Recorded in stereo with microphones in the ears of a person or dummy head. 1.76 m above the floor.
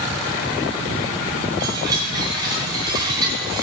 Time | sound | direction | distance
1.6 | a chime | 20° right (ahead or behind) | 4.5 m